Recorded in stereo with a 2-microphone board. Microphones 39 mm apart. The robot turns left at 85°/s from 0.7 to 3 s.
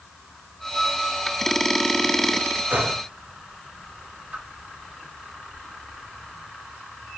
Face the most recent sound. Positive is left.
turn(degrees=-55)  # may be behind; listen again after turning